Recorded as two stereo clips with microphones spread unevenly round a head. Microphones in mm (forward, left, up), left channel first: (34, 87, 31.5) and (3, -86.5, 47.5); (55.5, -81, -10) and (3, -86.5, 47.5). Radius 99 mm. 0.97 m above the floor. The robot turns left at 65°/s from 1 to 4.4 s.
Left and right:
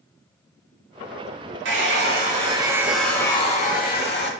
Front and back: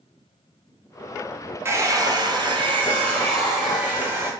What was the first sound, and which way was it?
A hair dryer, 105° right.